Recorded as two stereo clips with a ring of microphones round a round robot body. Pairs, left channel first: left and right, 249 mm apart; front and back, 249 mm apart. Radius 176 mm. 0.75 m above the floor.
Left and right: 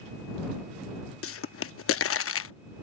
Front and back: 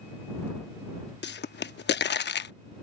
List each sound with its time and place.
1.2 s a pop: 50° left